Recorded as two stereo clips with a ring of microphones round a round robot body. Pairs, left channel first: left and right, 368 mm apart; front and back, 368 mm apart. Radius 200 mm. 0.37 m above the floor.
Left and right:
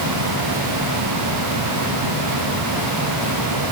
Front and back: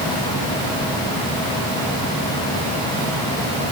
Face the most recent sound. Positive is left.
No sound to turn to.